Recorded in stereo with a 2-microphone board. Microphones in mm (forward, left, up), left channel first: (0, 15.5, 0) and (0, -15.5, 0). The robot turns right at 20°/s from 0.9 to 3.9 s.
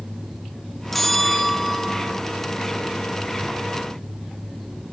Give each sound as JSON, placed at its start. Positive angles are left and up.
{"t": 0.9, "sound": "a bell", "side_deg": 10, "distance_m": 0.7}